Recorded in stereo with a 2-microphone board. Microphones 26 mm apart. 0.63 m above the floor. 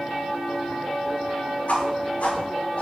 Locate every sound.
1.7 s a whoosh: 60° left (ahead or behind), 2.5 m